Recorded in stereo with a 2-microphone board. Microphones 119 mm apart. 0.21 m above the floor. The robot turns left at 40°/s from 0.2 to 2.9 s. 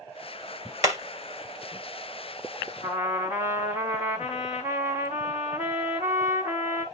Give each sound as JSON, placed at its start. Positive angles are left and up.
{"t": 0.8, "sound": "hammering", "side_deg": -30, "distance_m": 1.7}
{"t": 2.8, "sound": "a trumpet", "side_deg": 75, "distance_m": 2.5}